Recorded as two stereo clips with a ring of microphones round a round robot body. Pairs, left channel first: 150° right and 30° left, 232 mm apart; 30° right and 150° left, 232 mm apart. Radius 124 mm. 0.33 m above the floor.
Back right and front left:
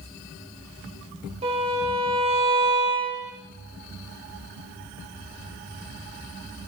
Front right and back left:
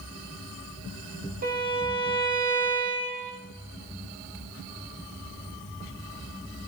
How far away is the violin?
About 7 m.